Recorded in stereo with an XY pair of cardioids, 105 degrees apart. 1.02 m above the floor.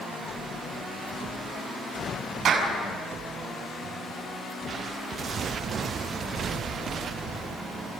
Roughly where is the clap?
Ahead right.